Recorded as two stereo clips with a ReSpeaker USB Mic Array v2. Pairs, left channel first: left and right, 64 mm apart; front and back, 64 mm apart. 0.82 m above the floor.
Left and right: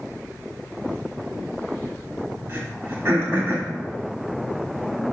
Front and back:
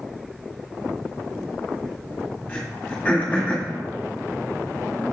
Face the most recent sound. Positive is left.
turn(degrees=-60)